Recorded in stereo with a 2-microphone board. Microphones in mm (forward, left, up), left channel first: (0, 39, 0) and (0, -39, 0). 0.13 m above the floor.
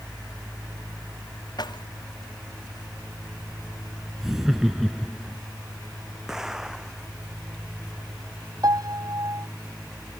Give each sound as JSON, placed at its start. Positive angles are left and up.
{"t": 1.6, "sound": "keys jangling", "side_deg": 65}
{"t": 4.2, "sound": "laughter", "side_deg": -5}
{"t": 6.3, "sound": "an explosion", "side_deg": -5}
{"t": 8.6, "sound": "a piano", "side_deg": -50}